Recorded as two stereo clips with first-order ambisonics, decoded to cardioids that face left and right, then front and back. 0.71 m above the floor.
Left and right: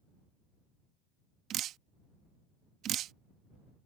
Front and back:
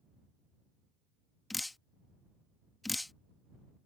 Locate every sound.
1.5 s dripping: 80° right